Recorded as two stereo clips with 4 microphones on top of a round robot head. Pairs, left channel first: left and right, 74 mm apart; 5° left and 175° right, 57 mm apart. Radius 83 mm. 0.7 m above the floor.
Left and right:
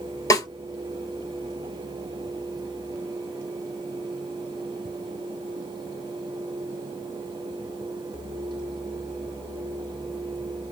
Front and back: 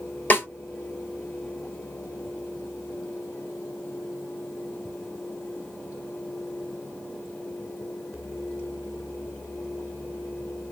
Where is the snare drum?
55° left, 3.5 m.